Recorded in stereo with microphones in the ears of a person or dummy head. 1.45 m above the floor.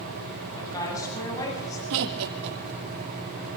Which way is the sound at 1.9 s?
65° right (ahead or behind).